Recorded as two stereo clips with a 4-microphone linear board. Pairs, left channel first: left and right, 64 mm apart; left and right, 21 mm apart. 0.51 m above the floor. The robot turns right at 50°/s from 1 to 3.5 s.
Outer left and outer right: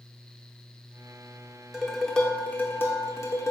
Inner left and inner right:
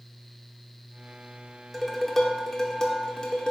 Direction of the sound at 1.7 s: 5° right.